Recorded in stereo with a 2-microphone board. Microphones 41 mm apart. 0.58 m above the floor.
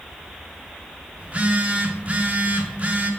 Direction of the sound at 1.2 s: 35° right (ahead or behind).